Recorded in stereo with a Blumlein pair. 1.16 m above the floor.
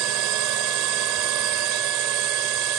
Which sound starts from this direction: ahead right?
A drone, at 0.0 s.